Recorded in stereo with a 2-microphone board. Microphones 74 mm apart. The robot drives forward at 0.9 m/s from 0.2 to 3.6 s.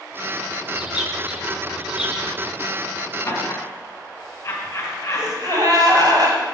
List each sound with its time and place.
0.7 s a bird: 10° right (ahead or behind), 1.2 m
3.2 s laughter: 35° left (ahead or behind), 3.5 m; by 5.9 s 30° left (ahead or behind), 3.5 m
5.1 s a gasp: 60° right (ahead or behind), 2.0 m